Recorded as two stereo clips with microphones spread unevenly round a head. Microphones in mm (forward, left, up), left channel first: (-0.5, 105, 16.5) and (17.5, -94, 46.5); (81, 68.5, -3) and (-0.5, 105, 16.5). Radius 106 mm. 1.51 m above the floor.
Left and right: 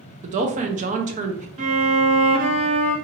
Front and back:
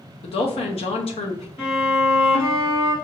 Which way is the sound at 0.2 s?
30° right.